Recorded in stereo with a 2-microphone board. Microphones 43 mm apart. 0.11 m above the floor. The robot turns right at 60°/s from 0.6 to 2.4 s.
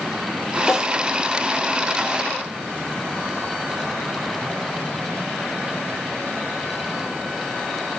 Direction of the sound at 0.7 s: 5° right (ahead or behind).